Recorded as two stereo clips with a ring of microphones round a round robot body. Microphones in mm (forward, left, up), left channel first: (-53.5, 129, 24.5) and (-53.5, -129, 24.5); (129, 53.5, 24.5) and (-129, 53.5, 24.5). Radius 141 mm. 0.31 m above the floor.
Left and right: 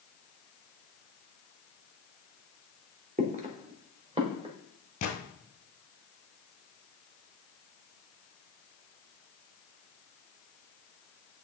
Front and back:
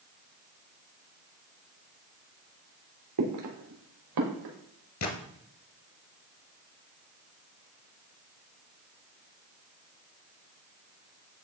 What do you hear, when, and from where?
3.2 s footsteps: 150° right, 2.5 m; by 4.5 s 160° right, 4 m
5.0 s a gunshot: 25° left, 1.4 m